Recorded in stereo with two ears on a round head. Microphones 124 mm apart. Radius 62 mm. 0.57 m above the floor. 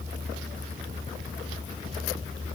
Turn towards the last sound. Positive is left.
No sound to turn to.